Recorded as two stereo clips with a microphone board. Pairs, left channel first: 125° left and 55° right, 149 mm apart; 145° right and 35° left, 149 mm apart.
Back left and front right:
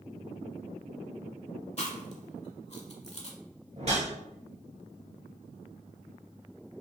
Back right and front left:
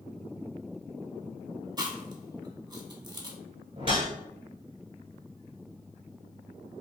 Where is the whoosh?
15° right, 1.2 m.